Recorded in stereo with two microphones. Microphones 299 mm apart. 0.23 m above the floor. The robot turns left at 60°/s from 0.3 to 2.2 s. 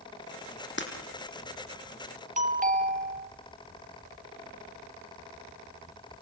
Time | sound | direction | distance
0.8 | breaking glass | 40° left (ahead or behind) | 4.5 m
2.4 | a doorbell | 25° right (ahead or behind) | 1.9 m